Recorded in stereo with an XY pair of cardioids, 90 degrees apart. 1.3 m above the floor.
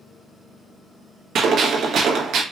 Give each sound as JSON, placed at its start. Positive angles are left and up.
{"t": 1.4, "sound": "a gunshot", "azimuth_deg": -65, "distance_m": 1.3}